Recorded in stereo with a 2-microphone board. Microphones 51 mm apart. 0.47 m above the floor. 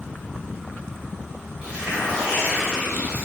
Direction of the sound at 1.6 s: 20° right (ahead or behind).